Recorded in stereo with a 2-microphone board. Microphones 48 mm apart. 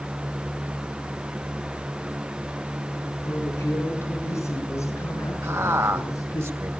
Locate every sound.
3.2 s a woman speaking: 60° left (ahead or behind), 5 m; by 6.4 s 80° left, 9.5 m
5.4 s a man speaking: 70° right (ahead or behind), 3 m